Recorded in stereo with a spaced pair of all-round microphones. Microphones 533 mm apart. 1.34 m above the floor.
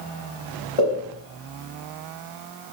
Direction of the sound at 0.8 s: 75° left (ahead or behind).